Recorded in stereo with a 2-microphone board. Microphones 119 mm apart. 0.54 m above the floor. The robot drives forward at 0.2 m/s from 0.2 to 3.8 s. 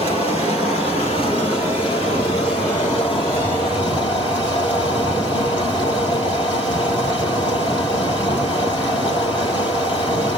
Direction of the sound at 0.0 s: 50° left (ahead or behind).